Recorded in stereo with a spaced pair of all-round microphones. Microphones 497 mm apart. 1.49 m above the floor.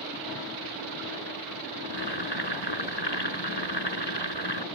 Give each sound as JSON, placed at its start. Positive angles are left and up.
{"t": 1.8, "sound": "boiling", "side_deg": 50}